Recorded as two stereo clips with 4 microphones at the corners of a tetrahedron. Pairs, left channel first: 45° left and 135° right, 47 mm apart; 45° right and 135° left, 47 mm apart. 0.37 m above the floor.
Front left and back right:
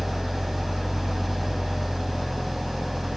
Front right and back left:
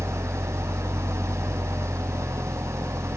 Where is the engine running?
135° left, 0.7 m.